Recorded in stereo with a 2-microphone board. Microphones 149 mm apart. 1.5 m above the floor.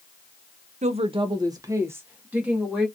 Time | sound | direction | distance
0.8 | a woman speaking | 50° right (ahead or behind) | 0.6 m